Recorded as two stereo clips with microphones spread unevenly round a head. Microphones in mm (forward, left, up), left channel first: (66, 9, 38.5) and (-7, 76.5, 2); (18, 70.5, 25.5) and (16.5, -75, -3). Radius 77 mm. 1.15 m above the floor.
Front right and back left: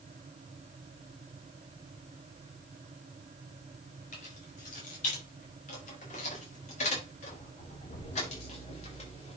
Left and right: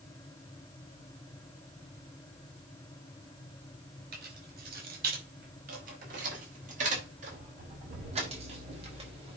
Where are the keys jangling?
70° right, 5.5 m; by 9.4 s 35° right, 5 m.